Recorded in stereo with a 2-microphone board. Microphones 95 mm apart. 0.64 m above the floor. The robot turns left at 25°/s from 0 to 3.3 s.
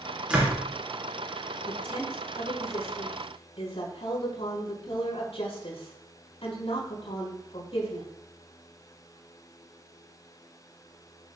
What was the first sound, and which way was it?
A door slam, 10° right (ahead or behind).